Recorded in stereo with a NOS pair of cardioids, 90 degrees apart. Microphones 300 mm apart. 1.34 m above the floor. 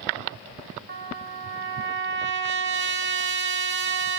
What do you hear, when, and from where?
0.9 s a trumpet: 40° right, 1.5 m